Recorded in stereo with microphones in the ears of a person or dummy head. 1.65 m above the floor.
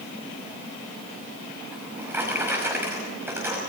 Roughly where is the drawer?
Centre.